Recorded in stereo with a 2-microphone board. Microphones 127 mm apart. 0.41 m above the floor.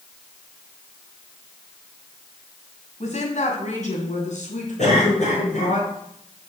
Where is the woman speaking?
70° left (ahead or behind), 2.5 m; by 5.8 s 80° left, 5 m.